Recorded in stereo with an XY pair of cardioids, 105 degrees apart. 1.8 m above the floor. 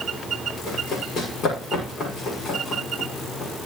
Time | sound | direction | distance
0.7 | running footsteps | 65° left | 6 m